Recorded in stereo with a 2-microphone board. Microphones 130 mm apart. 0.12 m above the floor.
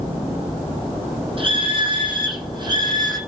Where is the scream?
45° right (ahead or behind), 5 m; by 3.2 s 30° right (ahead or behind), 5.5 m.